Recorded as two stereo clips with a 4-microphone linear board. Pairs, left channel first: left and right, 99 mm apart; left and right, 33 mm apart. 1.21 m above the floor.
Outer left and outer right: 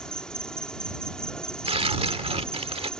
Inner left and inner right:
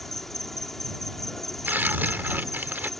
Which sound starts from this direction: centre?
An insect, at 0.0 s.